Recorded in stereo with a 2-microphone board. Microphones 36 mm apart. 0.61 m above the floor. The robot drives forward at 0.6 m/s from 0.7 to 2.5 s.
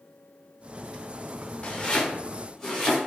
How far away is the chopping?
About 0.5 m.